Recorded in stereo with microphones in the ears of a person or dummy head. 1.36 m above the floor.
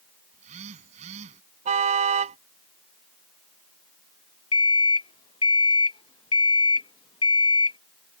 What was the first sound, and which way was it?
A phone buzzing, 45° right (ahead or behind).